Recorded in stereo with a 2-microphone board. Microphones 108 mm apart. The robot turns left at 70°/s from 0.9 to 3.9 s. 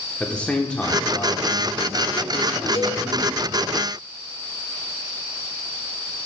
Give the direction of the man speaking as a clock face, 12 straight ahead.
6 o'clock.